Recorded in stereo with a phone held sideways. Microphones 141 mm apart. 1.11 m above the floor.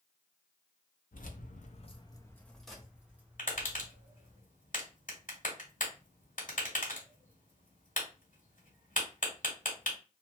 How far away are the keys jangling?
About 0.7 m.